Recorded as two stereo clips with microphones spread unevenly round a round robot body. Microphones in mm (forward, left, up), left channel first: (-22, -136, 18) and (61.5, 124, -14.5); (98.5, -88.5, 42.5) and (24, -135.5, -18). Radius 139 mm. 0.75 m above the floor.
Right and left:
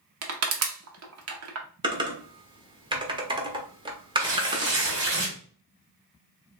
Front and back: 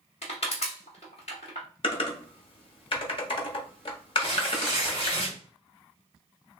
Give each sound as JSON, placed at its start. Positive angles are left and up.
{"t": 0.2, "sound": "crushing", "azimuth_deg": 100, "distance_m": 0.9}
{"t": 1.8, "sound": "typing on a keyboard", "azimuth_deg": 85, "distance_m": 1.0}
{"t": 4.2, "sound": "tearing paper", "azimuth_deg": 120, "distance_m": 2.0}